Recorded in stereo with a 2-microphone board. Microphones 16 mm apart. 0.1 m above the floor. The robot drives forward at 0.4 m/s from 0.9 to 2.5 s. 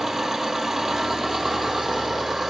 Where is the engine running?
15° right (ahead or behind), 1.3 m; by 2.5 s 10° right (ahead or behind), 1.9 m.